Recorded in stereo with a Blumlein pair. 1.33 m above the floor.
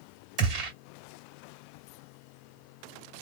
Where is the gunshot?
35° right, 2.5 m.